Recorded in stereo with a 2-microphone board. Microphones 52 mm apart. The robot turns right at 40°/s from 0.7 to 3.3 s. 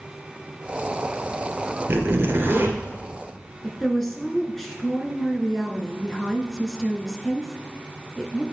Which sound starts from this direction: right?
A zipper, at 1.9 s.